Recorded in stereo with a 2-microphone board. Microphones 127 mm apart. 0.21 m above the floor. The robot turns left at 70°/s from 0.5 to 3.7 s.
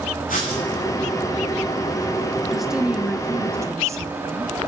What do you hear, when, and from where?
0.3 s writing: 90° left, 6.5 m; by 0.6 s 80° left, 6.5 m
2.5 s a woman speaking: centre (ahead or behind), 1.0 m; by 4.7 s 25° right (ahead or behind), 1.0 m